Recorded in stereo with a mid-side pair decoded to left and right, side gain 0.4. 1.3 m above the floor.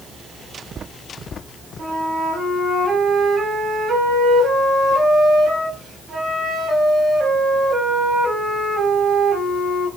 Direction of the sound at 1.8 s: 50° right.